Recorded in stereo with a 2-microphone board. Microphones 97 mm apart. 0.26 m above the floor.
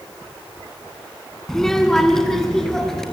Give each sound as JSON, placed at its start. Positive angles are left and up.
{"t": 1.5, "sound": "a child speaking", "side_deg": 5, "distance_m": 1.8}